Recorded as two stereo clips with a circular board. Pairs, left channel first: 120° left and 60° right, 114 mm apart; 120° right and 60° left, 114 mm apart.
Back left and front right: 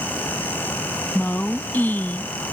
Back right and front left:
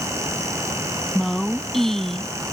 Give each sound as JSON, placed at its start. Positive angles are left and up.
{"t": 1.1, "sound": "a woman speaking", "azimuth_deg": 160}